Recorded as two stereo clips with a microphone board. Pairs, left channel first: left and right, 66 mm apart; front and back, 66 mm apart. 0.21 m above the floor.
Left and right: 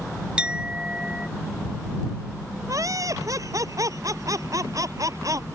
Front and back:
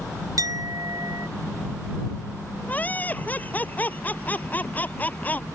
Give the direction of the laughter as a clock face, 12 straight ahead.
2 o'clock.